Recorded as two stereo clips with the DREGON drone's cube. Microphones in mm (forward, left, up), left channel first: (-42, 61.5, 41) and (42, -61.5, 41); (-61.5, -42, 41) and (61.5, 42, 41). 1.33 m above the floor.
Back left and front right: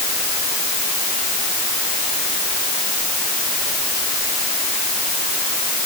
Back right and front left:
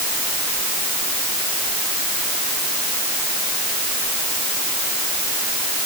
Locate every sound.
Only background noise.